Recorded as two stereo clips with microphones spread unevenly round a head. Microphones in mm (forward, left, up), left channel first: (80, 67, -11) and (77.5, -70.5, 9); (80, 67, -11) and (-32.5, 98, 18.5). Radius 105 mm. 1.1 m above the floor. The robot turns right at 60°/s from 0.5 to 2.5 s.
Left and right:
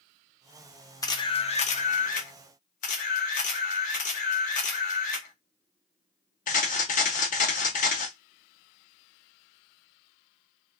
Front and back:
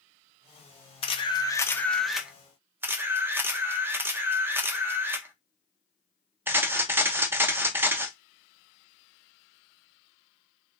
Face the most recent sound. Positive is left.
turn(degrees=110)